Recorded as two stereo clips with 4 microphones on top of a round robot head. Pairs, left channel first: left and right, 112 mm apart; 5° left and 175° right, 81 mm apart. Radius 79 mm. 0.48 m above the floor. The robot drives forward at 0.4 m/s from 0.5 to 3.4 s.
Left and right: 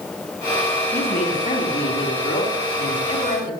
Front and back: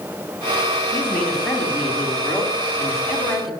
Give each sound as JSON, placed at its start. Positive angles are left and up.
{"t": 0.9, "sound": "a woman speaking", "azimuth_deg": 85, "distance_m": 5.0}